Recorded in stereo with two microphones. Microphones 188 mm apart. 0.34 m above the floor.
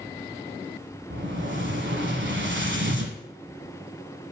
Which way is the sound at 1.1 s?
80° right.